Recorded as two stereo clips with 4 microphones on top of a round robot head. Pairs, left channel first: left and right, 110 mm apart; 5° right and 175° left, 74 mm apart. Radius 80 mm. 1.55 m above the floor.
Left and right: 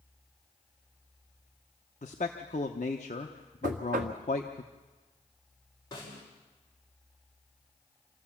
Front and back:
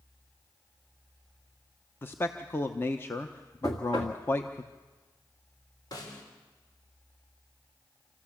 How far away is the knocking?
About 1.8 m.